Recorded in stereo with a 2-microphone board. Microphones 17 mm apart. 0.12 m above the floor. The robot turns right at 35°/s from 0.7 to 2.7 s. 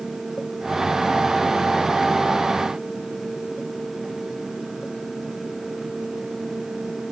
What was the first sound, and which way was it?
Only background noise.